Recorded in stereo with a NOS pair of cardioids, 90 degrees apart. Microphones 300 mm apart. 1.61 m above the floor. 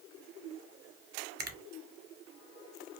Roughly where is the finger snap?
Ahead right.